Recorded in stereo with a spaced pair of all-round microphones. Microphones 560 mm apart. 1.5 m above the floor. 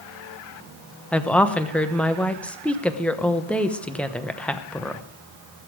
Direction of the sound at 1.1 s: Centre (ahead or behind).